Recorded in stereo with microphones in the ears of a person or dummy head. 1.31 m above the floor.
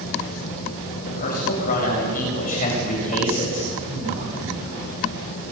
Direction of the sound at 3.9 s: 60° right (ahead or behind).